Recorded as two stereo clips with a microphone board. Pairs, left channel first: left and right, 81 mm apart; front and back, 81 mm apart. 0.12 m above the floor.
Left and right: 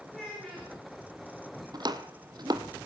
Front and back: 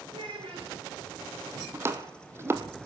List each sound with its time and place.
0.1 s a child speaking: 175° left, 9 m
1.7 s chopping: 120° right, 1.7 m